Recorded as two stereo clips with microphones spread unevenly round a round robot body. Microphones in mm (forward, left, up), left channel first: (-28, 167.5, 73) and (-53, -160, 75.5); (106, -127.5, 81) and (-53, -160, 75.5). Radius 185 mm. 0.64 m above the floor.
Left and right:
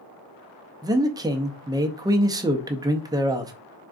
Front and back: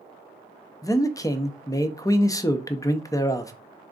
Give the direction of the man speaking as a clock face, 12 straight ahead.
1 o'clock.